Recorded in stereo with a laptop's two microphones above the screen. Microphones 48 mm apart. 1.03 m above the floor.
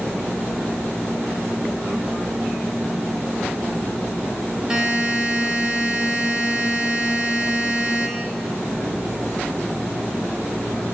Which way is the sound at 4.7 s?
15° right (ahead or behind).